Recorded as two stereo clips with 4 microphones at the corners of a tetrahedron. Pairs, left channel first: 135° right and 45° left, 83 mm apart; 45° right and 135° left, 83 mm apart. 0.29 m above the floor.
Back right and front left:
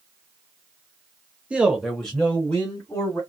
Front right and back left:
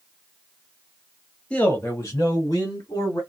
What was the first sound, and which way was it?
A man speaking, 5° left.